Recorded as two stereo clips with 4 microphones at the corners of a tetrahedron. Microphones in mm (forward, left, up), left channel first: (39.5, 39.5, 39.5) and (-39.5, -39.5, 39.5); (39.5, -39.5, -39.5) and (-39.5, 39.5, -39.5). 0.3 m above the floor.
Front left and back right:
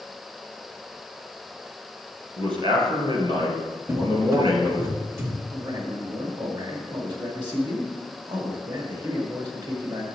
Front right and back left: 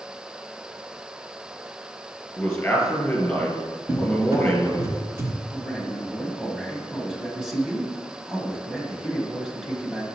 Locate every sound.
2.4 s a man speaking: 115° right, 2.5 m
3.9 s a cupboard door: 175° left, 1.1 m
5.5 s a man speaking: 140° right, 1.5 m